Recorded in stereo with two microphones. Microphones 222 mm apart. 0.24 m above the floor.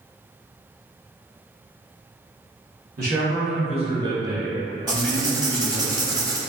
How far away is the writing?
About 0.7 m.